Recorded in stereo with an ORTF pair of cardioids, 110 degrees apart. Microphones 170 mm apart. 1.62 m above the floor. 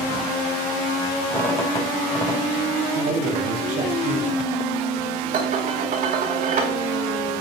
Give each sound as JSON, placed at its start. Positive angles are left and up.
{"t": 1.3, "sound": "a squeak", "azimuth_deg": 20, "distance_m": 4.0}
{"t": 3.0, "sound": "a man speaking", "azimuth_deg": -60, "distance_m": 3.0}
{"t": 5.3, "sound": "dishes clattering", "azimuth_deg": -60, "distance_m": 3.5}